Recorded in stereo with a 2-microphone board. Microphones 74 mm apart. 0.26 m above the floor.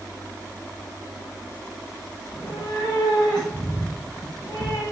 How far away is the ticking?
I don't hear ticking.